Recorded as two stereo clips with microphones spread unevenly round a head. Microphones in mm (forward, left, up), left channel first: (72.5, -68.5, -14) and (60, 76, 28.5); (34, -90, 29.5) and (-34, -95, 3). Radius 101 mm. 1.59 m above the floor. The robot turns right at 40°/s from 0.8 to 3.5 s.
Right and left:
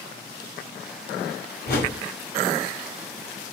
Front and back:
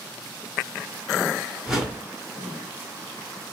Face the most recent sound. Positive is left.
turn(degrees=-10)